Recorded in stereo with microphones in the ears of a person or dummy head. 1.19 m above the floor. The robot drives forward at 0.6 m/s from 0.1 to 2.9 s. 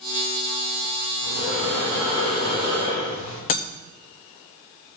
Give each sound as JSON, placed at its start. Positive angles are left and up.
{"t": 1.2, "sound": "breathing", "side_deg": 40, "distance_m": 6.5}
{"t": 3.5, "sound": "breaking glass", "side_deg": 45, "distance_m": 0.6}